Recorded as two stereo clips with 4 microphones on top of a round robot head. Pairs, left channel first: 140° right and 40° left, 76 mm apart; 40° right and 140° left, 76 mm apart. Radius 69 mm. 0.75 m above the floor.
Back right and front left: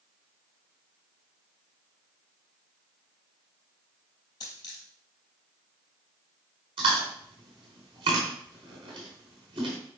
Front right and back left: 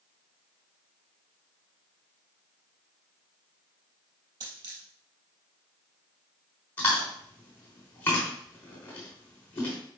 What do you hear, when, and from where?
4.4 s a dropped coin: 175° left, 3 m
6.8 s chewing: 25° left, 3 m